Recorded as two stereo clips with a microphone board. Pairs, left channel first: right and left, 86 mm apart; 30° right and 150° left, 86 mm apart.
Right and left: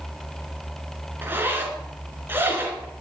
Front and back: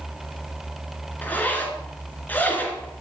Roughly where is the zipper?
Ahead left.